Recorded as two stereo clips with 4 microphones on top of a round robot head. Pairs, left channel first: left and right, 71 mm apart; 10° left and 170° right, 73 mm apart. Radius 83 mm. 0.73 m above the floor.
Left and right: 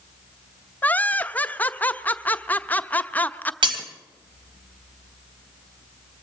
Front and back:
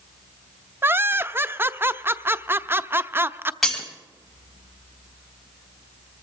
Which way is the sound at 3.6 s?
80° right.